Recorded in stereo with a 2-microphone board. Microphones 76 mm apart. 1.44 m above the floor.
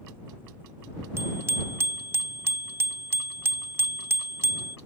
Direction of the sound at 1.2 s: 35° right (ahead or behind).